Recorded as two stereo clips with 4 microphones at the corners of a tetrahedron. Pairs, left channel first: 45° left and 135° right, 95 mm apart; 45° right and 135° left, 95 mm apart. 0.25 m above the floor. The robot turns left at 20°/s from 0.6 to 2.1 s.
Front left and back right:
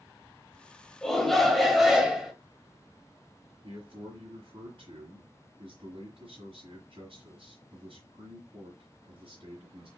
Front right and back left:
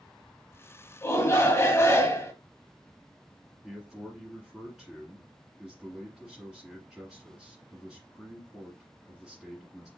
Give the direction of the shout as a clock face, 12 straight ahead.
1 o'clock.